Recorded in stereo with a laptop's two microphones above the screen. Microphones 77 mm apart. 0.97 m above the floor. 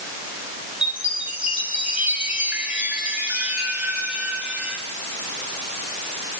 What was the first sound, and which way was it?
A chime, 15° right (ahead or behind).